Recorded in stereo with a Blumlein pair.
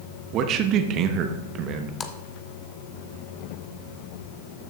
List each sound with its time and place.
0.3 s a man speaking: 35° right, 0.9 m
2.0 s a splash: 20° left, 0.8 m